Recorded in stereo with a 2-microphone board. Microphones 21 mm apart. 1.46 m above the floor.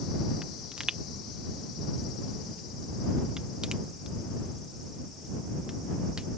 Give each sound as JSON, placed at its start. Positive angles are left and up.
{"t": 0.4, "sound": "a pop", "side_deg": -40}